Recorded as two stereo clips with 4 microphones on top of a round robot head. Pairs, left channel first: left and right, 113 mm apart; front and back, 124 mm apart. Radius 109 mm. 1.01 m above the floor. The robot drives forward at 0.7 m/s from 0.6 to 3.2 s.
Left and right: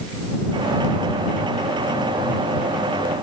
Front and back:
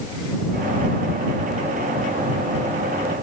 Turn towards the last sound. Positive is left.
No sound to turn to.